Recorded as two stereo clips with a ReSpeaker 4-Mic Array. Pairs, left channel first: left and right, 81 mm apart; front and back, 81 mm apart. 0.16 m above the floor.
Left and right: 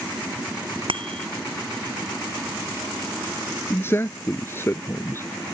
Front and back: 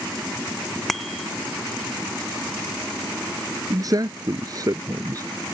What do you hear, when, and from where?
0.9 s a bicycle bell: 90° right
3.7 s a man speaking: 145° left